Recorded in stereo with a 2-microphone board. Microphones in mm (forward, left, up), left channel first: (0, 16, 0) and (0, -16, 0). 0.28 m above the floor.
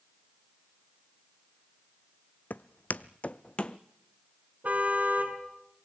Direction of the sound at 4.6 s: 50° right (ahead or behind).